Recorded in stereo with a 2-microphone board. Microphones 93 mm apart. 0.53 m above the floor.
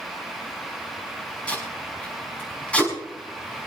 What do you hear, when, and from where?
1.5 s tape being pulled: 15° left (ahead or behind), 5.5 m